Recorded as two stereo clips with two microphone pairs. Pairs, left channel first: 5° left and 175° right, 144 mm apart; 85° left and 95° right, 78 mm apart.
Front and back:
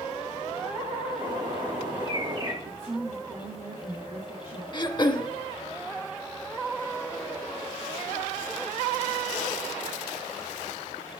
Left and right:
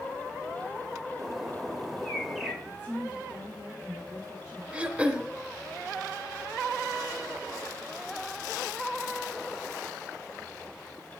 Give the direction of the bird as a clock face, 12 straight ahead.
6 o'clock.